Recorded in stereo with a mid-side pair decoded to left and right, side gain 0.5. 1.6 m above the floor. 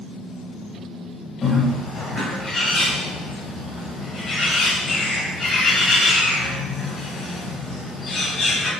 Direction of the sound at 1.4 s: 40° left.